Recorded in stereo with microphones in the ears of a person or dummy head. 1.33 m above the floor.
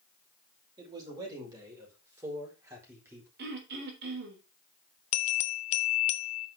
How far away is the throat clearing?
About 3.5 m.